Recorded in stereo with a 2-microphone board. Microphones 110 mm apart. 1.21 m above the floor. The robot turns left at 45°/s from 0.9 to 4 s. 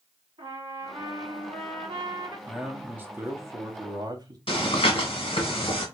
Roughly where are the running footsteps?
I don't hear running footsteps.